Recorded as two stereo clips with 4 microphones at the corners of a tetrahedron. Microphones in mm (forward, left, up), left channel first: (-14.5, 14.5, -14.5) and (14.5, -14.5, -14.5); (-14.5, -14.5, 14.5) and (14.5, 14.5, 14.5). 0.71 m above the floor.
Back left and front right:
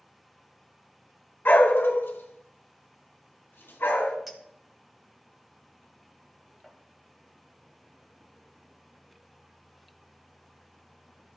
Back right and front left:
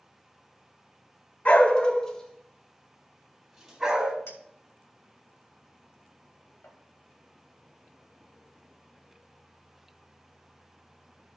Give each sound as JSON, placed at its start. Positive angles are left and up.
{"t": 1.4, "sound": "a dog barking", "azimuth_deg": 175, "distance_m": 1.0}
{"t": 4.3, "sound": "a clink", "azimuth_deg": -125, "distance_m": 2.0}